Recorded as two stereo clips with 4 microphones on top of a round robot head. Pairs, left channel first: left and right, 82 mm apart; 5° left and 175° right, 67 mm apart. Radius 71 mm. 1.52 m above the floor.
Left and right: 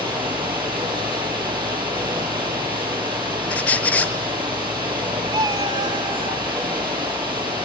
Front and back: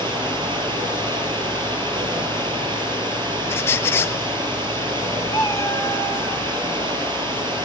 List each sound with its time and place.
0.0 s running water: 165° right, 6.5 m
3.5 s a squeak: 30° left, 0.6 m
5.3 s a cat meowing: 60° right, 1.3 m